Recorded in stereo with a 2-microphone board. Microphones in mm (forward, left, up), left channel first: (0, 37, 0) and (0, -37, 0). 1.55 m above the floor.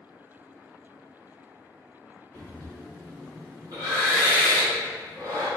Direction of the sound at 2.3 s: 75° right (ahead or behind).